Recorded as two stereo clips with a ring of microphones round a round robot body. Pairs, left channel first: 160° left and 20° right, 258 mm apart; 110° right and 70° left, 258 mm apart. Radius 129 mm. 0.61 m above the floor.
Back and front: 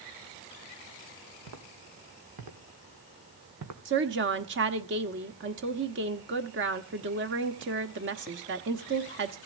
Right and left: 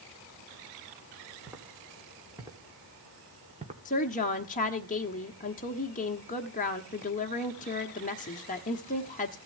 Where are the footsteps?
15° right, 3.5 m; by 3.8 s 5° left, 2.5 m.